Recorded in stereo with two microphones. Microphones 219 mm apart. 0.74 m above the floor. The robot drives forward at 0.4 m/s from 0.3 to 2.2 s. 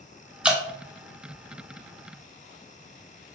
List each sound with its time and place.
0.4 s dripping: 5° right (ahead or behind), 1.0 m